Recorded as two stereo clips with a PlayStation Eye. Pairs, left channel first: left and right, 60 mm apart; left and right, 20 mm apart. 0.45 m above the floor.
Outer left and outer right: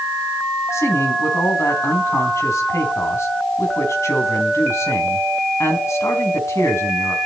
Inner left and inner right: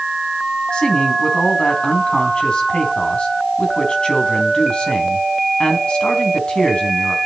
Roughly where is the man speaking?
Left.